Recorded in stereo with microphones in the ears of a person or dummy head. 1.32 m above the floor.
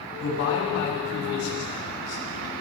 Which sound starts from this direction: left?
A man speaking, at 0.2 s.